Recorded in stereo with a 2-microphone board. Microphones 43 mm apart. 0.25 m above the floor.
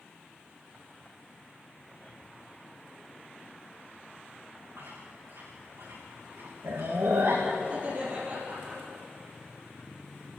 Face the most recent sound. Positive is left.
turn(degrees=-30)  # may be behind; listen again after turning